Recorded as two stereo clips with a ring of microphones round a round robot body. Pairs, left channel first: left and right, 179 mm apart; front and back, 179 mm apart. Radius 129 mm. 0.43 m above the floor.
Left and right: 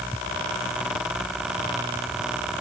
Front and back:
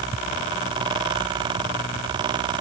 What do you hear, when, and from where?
Only background noise.